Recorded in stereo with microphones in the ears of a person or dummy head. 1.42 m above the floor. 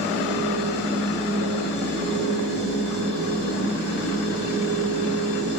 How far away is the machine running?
About 4.5 m.